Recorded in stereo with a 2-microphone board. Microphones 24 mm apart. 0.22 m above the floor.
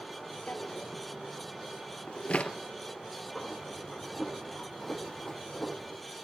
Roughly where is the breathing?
Centre.